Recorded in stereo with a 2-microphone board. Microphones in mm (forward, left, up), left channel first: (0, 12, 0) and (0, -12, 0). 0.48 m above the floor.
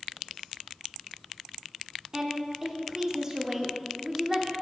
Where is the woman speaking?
20° right (ahead or behind), 0.7 m.